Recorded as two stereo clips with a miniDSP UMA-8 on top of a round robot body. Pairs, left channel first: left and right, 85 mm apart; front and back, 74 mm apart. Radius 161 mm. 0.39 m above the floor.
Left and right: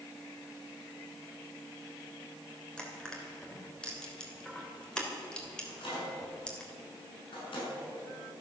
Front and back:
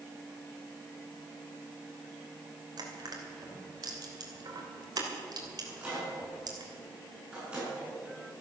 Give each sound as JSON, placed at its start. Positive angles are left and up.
{"t": 2.8, "sound": "crushing", "azimuth_deg": 170, "distance_m": 3.0}
{"t": 5.6, "sound": "a microwave", "azimuth_deg": 105, "distance_m": 6.5}